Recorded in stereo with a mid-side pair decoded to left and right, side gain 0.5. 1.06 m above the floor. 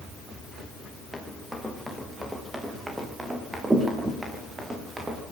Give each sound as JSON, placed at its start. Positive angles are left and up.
{"t": 1.1, "sound": "running footsteps", "azimuth_deg": 0, "distance_m": 7.5}